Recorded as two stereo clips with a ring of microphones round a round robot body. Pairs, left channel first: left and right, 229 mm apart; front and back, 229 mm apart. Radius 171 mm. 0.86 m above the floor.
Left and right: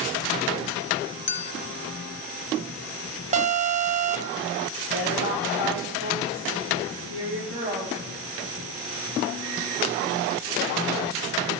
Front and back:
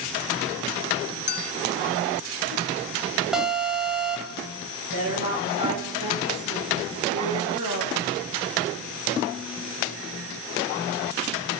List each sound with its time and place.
1.3 s a clink: 45° left, 1.0 m
3.3 s an alarm: 95° right, 0.6 m
4.9 s a woman speaking: 150° right, 4.5 m